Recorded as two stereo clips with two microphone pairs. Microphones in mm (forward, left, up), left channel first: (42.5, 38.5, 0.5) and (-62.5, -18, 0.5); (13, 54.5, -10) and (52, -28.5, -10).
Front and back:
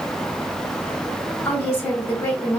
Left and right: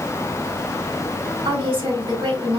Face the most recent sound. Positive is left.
turn(degrees=-40)